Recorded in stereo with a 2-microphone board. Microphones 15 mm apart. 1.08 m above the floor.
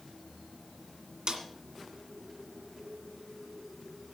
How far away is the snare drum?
About 2 m.